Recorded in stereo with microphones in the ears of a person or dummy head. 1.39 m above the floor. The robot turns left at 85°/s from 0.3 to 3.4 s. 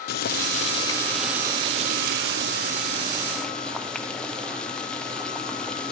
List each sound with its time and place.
0.1 s boiling: 80° left, 0.6 m; by 5.9 s 175° left, 0.6 m